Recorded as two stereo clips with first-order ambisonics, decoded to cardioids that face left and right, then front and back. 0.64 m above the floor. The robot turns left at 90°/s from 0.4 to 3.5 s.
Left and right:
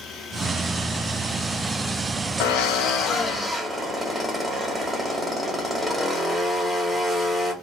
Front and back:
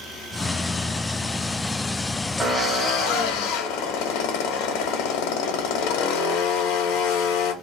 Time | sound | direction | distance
2.4 | a drill | 95° left | 0.7 m